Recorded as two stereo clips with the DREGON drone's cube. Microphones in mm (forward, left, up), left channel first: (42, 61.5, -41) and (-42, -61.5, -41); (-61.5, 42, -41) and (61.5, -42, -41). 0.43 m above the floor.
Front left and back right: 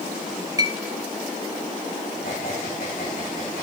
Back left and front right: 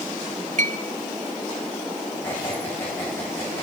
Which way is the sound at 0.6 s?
60° right.